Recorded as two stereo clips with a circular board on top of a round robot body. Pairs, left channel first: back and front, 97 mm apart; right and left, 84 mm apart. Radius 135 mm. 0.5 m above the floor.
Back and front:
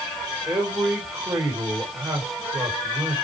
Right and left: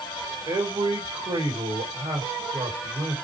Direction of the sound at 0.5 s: 60° left.